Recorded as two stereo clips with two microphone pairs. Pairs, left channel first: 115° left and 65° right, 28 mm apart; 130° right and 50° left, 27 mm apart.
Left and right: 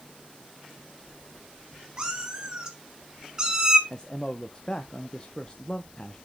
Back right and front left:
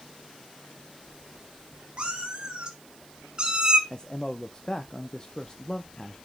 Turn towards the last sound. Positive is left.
turn(degrees=180)